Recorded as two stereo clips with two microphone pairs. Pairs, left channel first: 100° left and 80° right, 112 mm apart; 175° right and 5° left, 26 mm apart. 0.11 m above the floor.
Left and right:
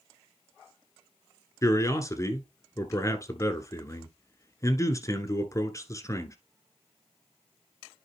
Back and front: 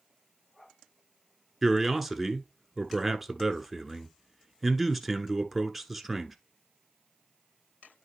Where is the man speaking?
90° left, 1.1 m.